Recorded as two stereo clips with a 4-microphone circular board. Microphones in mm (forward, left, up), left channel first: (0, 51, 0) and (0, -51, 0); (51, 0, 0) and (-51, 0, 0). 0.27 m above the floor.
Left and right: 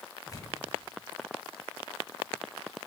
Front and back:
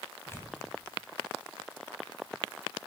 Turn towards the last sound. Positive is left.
turn(degrees=55)